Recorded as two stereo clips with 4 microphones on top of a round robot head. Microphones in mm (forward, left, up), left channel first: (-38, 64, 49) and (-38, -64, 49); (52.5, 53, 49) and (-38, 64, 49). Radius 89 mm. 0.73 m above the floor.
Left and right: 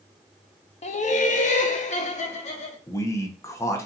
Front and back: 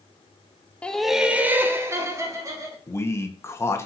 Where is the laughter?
70° left, 0.8 m; by 2.8 s 125° left, 2.0 m.